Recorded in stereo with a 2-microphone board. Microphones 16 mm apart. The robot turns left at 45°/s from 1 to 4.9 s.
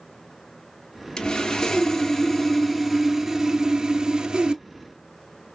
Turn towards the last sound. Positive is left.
turn(degrees=-95)